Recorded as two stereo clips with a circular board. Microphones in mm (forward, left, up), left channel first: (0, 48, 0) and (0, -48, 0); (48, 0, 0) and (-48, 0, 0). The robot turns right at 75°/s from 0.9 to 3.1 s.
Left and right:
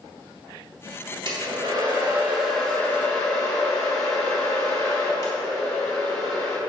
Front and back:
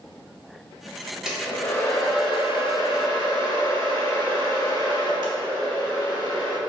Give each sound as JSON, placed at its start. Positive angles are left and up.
{"t": 1.2, "sound": "a hair dryer", "azimuth_deg": -100, "distance_m": 1.9}